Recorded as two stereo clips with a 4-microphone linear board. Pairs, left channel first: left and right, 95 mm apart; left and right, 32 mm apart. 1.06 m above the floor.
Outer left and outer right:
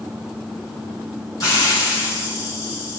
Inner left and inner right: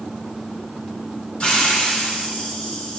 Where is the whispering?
No whispering in this recording.